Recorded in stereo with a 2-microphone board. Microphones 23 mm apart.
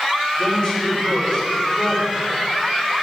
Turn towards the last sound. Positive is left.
turn(degrees=30)  # may be behind; listen again after turning